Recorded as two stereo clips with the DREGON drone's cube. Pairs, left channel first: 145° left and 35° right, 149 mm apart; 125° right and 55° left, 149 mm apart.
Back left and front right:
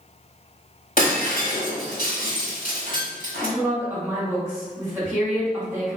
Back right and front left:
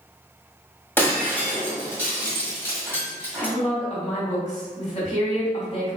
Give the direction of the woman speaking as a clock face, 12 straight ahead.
3 o'clock.